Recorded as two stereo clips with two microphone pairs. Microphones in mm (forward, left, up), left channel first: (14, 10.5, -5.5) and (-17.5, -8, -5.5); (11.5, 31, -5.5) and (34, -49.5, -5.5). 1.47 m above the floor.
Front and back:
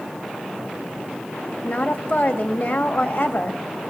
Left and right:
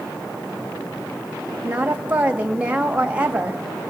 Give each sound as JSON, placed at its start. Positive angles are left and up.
{"t": 1.6, "sound": "a woman speaking", "azimuth_deg": -5, "distance_m": 2.0}